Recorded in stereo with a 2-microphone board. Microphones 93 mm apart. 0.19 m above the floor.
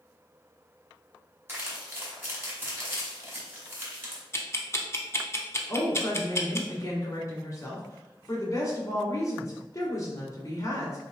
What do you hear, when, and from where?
1.5 s crumpling: 25° right (ahead or behind), 1.5 m
4.3 s ticking: 30° left (ahead or behind), 0.6 m
5.7 s a woman speaking: 35° left (ahead or behind), 1.5 m